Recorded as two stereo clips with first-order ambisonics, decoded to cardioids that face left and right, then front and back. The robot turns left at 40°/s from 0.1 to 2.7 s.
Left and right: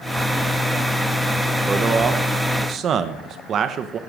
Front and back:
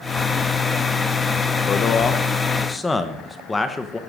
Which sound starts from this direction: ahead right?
A man speaking, at 1.7 s.